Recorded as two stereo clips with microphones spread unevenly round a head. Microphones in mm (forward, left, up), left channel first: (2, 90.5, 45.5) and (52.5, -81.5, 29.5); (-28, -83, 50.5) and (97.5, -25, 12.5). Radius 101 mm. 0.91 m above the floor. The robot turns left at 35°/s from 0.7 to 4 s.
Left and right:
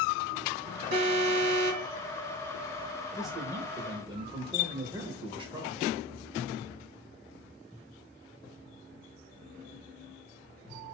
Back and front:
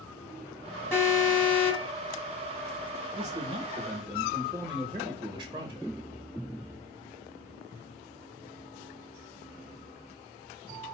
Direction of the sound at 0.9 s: 75° right.